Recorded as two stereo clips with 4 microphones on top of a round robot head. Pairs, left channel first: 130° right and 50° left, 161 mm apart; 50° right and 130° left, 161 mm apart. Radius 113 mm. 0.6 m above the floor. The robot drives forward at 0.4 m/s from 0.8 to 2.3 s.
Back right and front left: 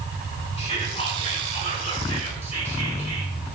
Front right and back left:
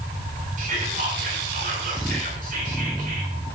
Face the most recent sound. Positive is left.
turn(degrees=175)